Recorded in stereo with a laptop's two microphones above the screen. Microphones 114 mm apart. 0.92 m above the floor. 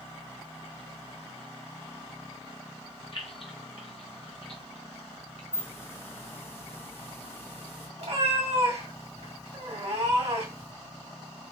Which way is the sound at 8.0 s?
70° right (ahead or behind).